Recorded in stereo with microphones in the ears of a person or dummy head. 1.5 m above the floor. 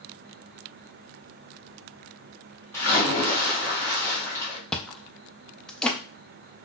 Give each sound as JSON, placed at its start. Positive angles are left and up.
{"t": 2.7, "sound": "a splash", "side_deg": 10, "distance_m": 0.7}
{"t": 4.7, "sound": "chewing", "side_deg": 15, "distance_m": 0.5}